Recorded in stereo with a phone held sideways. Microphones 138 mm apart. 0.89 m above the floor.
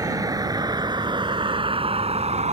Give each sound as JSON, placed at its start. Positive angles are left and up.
{"t": 0.0, "sound": "a vehicle", "side_deg": -25}